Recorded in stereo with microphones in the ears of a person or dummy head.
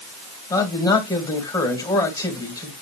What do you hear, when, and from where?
0.5 s a man speaking: 20° left (ahead or behind), 2.0 m